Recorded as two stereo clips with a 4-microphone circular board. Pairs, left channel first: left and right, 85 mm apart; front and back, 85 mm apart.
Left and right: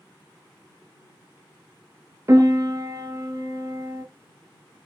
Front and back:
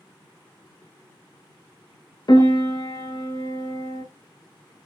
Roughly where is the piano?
Ahead right.